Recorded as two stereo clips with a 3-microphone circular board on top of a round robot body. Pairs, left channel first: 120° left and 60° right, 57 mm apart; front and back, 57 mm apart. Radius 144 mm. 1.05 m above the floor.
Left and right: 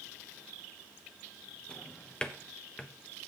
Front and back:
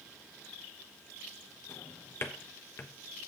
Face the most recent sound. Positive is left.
turn(degrees=45)